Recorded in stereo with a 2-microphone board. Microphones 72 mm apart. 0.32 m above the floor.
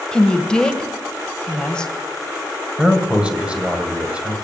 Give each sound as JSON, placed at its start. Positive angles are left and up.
{"t": 0.1, "sound": "a woman speaking", "side_deg": 10, "distance_m": 1.3}
{"t": 2.8, "sound": "a man speaking", "side_deg": -15, "distance_m": 2.0}